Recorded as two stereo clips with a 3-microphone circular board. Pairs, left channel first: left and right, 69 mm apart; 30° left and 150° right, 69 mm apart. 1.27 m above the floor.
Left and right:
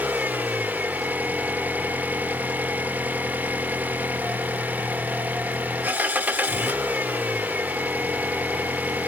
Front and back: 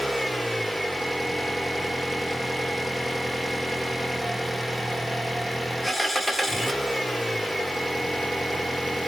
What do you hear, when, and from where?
0.0 s an engine running: 60° right, 1.0 m